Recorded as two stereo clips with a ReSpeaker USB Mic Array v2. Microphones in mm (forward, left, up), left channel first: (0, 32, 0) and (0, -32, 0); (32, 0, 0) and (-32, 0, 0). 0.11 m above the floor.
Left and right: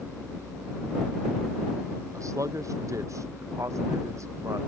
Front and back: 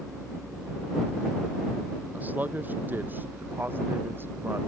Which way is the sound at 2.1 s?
115° right.